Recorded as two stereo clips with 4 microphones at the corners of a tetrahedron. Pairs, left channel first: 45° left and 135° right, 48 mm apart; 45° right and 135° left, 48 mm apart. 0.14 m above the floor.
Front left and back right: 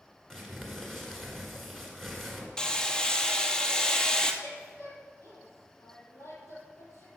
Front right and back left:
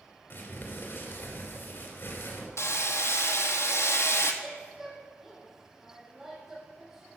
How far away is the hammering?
About 1.0 m.